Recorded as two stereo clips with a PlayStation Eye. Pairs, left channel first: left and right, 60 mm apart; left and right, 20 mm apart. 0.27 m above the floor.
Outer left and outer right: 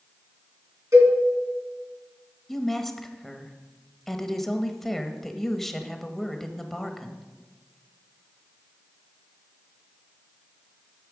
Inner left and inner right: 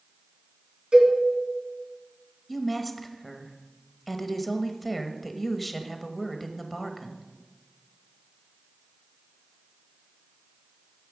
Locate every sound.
0.9 s a cowbell: 60° right (ahead or behind), 2.5 m
2.5 s a woman speaking: 5° left (ahead or behind), 0.9 m